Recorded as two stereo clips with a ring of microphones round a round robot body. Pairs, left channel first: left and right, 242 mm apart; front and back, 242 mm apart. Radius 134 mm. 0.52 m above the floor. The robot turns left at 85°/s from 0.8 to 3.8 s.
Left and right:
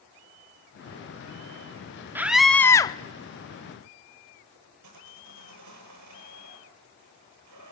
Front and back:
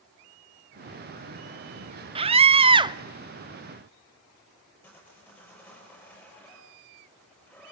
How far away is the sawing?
About 7 m.